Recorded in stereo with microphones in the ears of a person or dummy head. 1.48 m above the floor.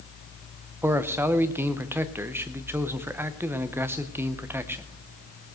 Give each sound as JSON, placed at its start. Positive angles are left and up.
{"t": 0.8, "sound": "a man speaking", "side_deg": -10, "distance_m": 0.8}